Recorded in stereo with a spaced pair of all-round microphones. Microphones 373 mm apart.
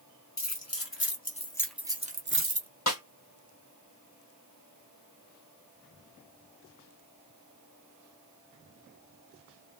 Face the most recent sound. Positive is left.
turn(degrees=45)  # may be behind; listen again after turning